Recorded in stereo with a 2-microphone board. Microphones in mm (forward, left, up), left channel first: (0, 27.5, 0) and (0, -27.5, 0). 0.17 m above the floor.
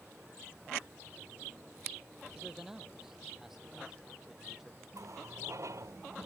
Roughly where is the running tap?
Right.